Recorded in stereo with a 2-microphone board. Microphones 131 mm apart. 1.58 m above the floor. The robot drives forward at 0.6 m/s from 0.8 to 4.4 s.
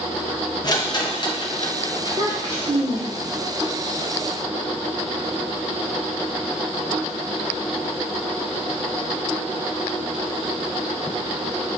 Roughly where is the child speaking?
Right.